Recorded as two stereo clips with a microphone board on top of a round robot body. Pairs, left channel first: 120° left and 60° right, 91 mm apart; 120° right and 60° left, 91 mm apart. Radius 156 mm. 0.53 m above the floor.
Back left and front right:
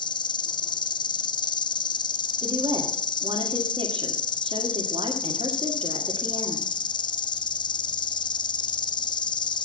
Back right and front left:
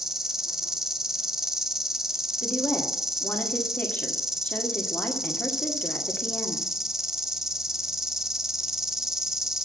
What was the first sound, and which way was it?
An insect, 145° left.